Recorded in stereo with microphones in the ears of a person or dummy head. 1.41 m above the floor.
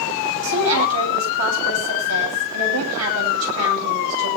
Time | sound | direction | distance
0.4 | a woman speaking | 90° right | 9.5 m